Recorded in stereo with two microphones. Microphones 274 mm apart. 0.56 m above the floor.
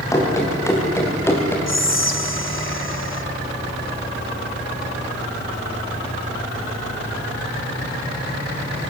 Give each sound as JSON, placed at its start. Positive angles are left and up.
{"t": 0.1, "sound": "running footsteps", "side_deg": 10, "distance_m": 6.5}
{"t": 1.7, "sound": "whispering", "side_deg": 45, "distance_m": 2.0}